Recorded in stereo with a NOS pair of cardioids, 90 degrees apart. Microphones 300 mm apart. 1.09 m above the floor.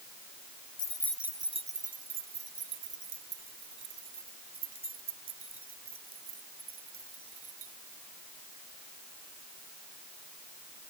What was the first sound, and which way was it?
Keys jangling, 30° left.